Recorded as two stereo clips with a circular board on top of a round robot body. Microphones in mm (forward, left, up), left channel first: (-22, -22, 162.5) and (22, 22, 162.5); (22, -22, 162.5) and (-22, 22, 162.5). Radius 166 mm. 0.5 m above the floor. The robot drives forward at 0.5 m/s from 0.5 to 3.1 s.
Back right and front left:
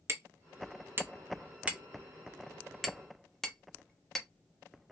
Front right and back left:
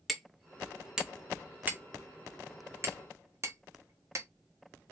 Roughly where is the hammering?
Ahead left.